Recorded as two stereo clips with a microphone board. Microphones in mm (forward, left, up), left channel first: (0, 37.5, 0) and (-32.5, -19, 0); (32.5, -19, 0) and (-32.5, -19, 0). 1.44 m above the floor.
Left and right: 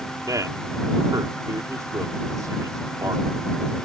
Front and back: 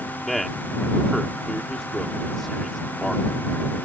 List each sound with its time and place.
0.3 s a man speaking: 85° right